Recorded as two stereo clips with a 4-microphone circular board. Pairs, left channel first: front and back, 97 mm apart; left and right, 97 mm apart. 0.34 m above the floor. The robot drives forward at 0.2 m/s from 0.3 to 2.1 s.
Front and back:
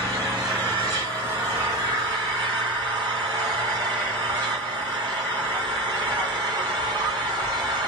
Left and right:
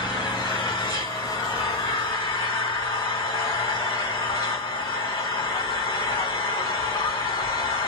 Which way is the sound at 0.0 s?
130° left.